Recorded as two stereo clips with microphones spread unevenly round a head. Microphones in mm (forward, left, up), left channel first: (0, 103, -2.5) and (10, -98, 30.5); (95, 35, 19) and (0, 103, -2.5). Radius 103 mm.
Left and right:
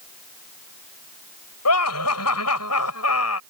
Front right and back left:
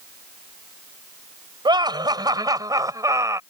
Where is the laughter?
90° left; by 3.4 s 80° left.